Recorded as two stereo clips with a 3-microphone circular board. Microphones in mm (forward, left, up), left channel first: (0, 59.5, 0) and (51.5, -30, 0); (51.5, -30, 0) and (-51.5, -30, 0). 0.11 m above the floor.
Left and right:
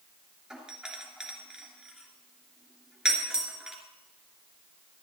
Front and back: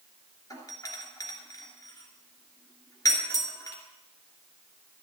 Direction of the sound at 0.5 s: 20° left.